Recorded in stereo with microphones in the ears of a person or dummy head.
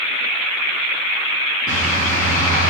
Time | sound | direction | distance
1.7 | a bird | 20° left (ahead or behind) | 1.8 m